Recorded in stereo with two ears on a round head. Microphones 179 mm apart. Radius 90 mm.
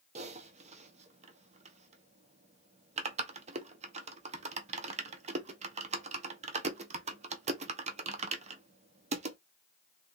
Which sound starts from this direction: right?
Typing on a keyboard, at 0.1 s.